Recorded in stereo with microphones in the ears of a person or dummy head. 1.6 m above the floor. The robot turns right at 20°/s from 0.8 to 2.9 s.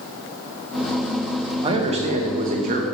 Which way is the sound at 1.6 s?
25° right (ahead or behind).